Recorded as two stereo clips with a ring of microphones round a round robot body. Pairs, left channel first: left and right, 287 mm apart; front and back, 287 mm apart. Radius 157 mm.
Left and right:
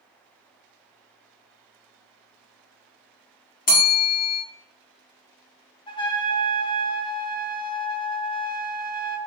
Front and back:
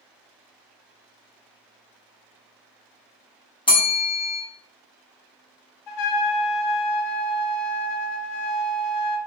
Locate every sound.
3.7 s a bell: 60° left, 1.3 m
5.9 s a trumpet: 15° left, 0.7 m